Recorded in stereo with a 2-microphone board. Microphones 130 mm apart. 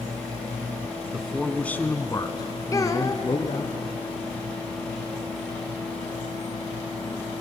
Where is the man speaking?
5° right (ahead or behind), 1.2 m; by 3.7 s 45° left (ahead or behind), 2 m.